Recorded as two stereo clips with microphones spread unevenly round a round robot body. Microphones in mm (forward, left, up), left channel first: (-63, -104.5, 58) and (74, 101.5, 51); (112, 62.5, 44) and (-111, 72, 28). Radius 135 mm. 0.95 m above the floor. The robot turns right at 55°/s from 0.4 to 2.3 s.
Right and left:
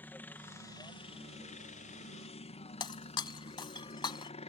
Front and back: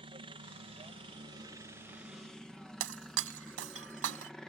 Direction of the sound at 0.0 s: 160° left.